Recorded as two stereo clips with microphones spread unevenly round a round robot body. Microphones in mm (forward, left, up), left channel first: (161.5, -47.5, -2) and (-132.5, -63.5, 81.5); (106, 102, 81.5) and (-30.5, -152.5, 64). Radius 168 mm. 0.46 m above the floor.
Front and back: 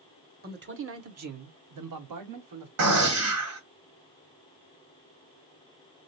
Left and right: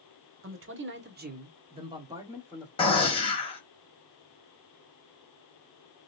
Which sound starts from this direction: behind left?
A gunshot, at 2.8 s.